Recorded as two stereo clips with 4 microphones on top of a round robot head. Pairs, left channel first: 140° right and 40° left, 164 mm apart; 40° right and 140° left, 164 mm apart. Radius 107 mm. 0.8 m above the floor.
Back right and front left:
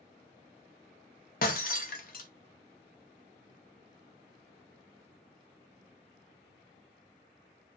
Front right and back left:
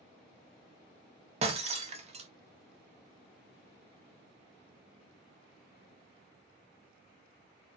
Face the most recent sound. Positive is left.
turn(degrees=-170)